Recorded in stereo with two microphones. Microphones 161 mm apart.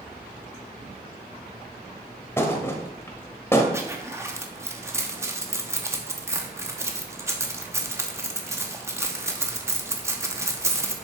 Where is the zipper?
15° right (ahead or behind), 1.0 m.